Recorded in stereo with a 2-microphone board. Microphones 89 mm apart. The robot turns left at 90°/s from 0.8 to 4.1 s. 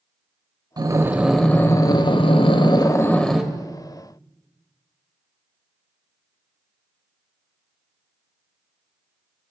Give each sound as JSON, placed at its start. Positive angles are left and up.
{"t": 0.8, "sound": "breathing", "azimuth_deg": -135, "distance_m": 0.6}